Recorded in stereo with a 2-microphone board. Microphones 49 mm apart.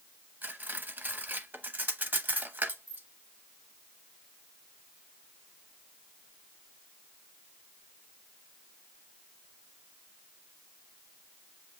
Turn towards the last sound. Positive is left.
turn(degrees=-40)  # may be behind; listen again after turning